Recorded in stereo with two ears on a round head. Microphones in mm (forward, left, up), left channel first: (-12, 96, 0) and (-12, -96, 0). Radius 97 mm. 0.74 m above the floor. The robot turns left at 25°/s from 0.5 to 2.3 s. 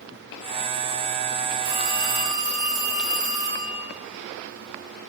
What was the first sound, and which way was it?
A phone ringing, 55° right (ahead or behind).